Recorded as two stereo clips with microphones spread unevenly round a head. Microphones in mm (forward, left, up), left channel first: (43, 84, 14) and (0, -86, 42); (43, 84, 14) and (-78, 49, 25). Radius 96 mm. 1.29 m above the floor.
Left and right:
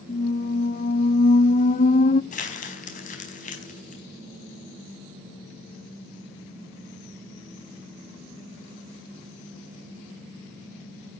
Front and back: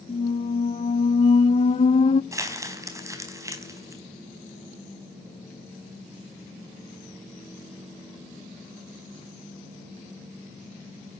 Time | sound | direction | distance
0.1 | a squeak | 35° left | 0.5 m
2.3 | crumpling | 130° left | 4 m